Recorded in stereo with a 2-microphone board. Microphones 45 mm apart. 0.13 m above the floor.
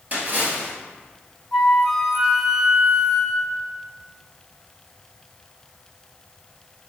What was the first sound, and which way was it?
A splash, 45° right (ahead or behind).